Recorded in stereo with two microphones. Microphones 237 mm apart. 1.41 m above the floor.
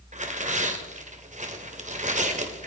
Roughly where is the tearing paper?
Right.